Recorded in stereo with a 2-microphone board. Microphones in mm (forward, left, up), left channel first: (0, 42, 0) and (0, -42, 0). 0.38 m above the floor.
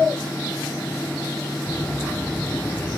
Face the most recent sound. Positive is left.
turn(degrees=25)  # may be behind; listen again after turning